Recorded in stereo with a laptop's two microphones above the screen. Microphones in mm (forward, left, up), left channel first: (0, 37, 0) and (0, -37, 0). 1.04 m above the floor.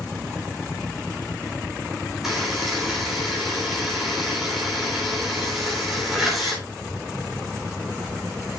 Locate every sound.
2.2 s a buzzer: 5° right (ahead or behind), 3 m